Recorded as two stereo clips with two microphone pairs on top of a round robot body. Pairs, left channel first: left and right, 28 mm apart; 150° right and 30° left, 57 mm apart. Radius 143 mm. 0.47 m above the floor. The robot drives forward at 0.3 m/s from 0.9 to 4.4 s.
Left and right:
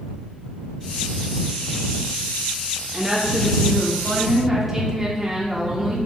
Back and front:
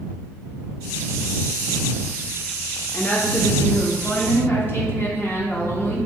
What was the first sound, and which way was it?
A woman speaking, 175° left.